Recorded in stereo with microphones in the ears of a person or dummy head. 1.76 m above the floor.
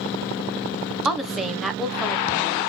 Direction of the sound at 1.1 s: Centre (ahead or behind).